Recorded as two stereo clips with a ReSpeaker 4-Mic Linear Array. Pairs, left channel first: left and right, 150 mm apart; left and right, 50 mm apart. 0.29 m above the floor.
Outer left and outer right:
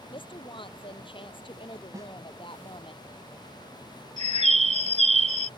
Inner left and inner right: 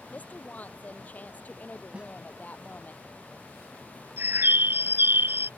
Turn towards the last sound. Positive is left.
turn(degrees=-50)  # may be behind; listen again after turning